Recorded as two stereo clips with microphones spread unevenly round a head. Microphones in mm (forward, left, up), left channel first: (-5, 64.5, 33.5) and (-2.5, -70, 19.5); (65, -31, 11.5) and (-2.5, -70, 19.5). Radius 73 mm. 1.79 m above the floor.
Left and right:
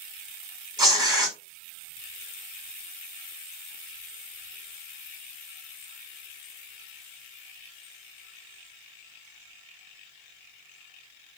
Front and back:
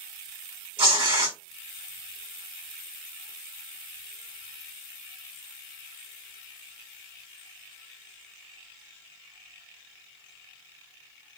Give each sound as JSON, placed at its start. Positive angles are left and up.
{"t": 0.8, "sound": "tearing paper", "azimuth_deg": -155, "distance_m": 2.5}